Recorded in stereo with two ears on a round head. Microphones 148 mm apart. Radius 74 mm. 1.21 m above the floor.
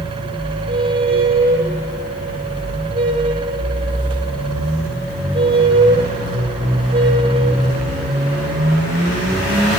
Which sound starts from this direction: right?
A squeak, at 0.7 s.